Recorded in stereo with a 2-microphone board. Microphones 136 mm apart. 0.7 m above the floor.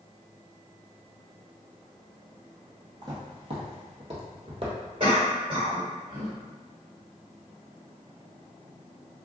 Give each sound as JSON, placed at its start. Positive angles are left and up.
{"t": 3.0, "sound": "footsteps", "side_deg": -35, "distance_m": 1.1}
{"t": 5.0, "sound": "a cough", "side_deg": -55, "distance_m": 1.7}